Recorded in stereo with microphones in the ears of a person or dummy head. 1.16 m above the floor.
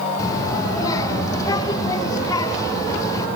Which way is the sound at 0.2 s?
20° left (ahead or behind).